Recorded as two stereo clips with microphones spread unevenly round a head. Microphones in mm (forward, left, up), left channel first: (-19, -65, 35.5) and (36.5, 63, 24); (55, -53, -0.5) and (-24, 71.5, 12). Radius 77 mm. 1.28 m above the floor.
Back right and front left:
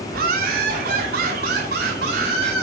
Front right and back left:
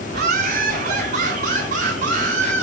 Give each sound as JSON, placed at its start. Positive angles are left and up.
{"t": 0.1, "sound": "laughter", "azimuth_deg": 95, "distance_m": 4.0}